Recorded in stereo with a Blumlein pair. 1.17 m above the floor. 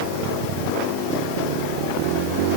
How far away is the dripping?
No dripping in this recording.